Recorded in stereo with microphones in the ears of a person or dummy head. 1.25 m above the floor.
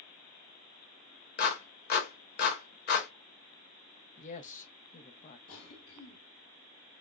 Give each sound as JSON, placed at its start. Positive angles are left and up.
{"t": 1.4, "sound": "a clap", "side_deg": 55, "distance_m": 1.1}
{"t": 4.2, "sound": "a woman speaking", "side_deg": 40, "distance_m": 0.6}
{"t": 5.5, "sound": "a cough", "side_deg": 70, "distance_m": 1.8}